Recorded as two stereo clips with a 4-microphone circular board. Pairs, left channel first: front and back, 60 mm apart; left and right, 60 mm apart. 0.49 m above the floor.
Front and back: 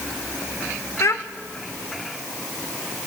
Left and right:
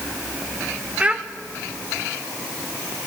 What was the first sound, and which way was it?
A child speaking, 25° right.